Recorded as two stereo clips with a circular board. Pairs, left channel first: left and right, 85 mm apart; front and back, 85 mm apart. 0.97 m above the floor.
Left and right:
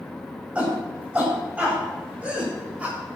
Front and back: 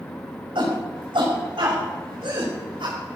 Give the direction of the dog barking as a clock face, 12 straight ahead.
No dog barking in this recording.